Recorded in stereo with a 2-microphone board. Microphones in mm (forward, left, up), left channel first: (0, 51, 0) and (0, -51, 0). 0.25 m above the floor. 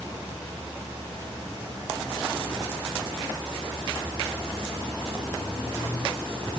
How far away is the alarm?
I don't hear an alarm.